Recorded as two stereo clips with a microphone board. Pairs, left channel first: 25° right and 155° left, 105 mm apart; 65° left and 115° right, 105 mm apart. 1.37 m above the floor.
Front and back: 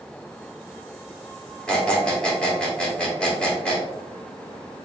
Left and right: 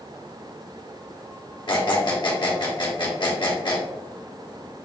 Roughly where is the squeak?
Ahead left.